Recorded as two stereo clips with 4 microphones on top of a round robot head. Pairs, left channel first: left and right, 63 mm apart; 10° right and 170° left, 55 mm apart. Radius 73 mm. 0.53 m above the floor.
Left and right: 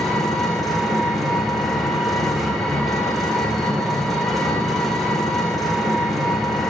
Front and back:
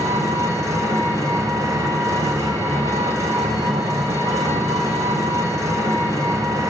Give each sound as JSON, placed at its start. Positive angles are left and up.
{"t": 0.0, "sound": "an engine running", "azimuth_deg": 180, "distance_m": 2.0}